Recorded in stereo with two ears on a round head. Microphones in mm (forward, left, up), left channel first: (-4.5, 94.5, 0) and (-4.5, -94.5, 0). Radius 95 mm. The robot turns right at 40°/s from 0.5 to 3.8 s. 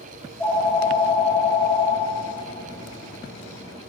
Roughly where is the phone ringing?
Ahead.